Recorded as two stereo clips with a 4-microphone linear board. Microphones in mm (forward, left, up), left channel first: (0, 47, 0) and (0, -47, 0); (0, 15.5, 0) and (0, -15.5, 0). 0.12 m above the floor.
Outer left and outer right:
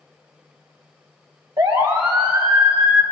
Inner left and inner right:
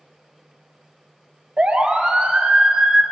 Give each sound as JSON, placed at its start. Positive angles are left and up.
{"t": 1.6, "sound": "a siren", "side_deg": -55, "distance_m": 3.0}